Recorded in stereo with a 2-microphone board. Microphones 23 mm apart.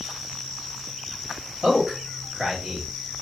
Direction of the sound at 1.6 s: 30° right (ahead or behind).